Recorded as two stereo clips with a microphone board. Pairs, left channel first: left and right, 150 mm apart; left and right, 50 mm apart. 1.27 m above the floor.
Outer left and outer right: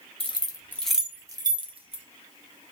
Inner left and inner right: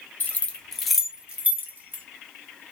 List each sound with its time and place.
0.2 s keys jangling: 40° left (ahead or behind), 0.6 m; by 2.0 s 45° right (ahead or behind), 0.9 m